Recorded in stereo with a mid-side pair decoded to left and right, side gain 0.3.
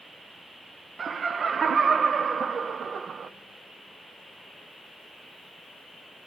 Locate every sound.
1.0 s laughter: 65° right, 0.5 m